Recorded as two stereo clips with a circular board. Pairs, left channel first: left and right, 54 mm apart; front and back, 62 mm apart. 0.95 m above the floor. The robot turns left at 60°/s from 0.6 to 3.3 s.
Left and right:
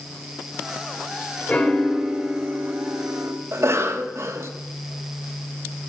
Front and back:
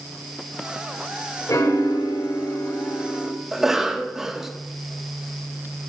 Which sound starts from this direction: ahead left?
A piano, at 1.5 s.